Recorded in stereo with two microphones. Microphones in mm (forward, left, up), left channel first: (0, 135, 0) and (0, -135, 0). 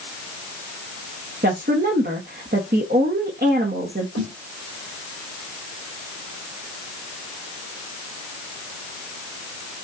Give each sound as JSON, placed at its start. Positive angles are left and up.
{"t": 1.4, "sound": "a woman speaking", "side_deg": -40, "distance_m": 0.9}
{"t": 4.2, "sound": "a snare drum", "side_deg": -65, "distance_m": 1.8}